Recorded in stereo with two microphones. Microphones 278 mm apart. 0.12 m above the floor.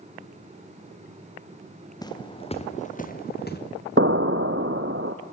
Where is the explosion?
45° right (ahead or behind), 0.9 m.